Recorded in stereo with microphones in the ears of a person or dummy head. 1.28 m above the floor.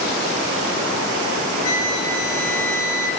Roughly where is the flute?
Left.